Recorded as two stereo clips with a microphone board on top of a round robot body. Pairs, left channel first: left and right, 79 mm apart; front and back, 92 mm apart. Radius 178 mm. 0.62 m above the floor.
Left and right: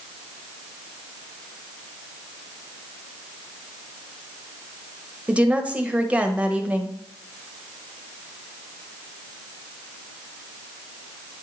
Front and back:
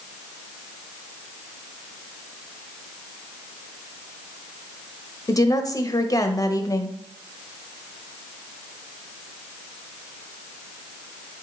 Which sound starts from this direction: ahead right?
A woman speaking, at 5.3 s.